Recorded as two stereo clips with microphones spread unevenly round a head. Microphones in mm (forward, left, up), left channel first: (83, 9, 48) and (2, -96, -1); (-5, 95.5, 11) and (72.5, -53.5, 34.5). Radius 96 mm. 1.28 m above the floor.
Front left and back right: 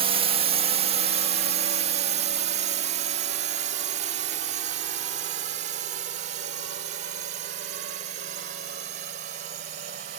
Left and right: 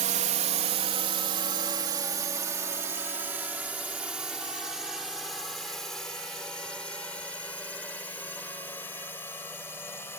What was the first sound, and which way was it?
A drone, 115° right.